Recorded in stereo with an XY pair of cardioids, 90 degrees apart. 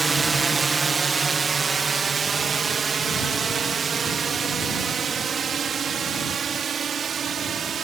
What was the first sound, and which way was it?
A drone, 30° right.